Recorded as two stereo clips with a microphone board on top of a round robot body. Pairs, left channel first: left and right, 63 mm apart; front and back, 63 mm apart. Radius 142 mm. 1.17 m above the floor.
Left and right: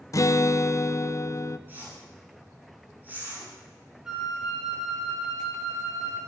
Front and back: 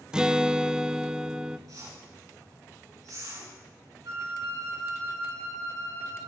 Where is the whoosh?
150° right, 9 m.